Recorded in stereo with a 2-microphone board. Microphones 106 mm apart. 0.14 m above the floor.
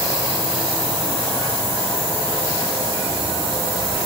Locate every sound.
Only background noise.